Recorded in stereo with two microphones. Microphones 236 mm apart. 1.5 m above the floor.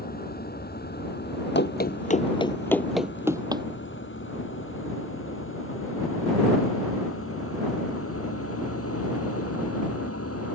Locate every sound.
0.0 s a vehicle: 40° left (ahead or behind); by 10.6 s 80° left
1.6 s running footsteps: 50° left (ahead or behind); by 3.6 s 20° right (ahead or behind)